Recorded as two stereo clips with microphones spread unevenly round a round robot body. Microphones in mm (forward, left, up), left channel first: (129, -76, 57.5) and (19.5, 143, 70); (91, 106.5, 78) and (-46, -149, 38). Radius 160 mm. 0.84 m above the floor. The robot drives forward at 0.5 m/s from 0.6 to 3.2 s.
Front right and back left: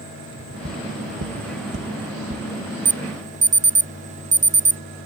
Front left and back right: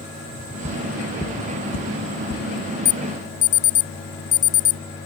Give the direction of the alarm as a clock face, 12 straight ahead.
10 o'clock.